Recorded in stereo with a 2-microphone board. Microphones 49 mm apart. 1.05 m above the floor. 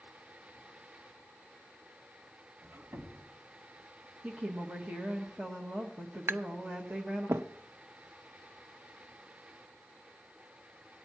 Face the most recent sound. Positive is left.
turn(degrees=-60)  # may be behind; listen again after turning